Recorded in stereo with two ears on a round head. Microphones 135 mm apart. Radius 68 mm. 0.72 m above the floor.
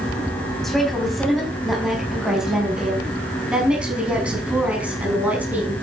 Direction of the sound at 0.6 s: Centre (ahead or behind).